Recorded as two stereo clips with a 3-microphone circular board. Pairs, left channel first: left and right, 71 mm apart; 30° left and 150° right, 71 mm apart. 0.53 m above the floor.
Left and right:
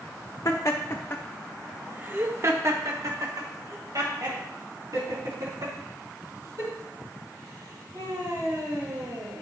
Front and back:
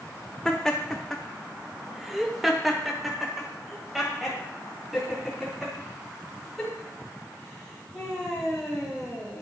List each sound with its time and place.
0.5 s laughter: 115° left, 1.2 m; by 9.4 s 65° right, 7 m